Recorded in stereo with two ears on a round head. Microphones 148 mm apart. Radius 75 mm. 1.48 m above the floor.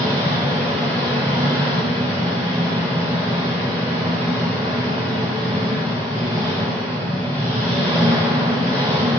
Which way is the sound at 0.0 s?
10° left (ahead or behind).